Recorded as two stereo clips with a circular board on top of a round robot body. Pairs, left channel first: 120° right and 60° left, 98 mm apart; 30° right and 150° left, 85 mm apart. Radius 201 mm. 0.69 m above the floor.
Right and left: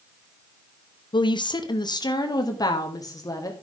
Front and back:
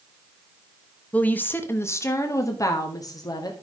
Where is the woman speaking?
100° right, 1.1 m; by 3.5 s 65° right, 2.0 m.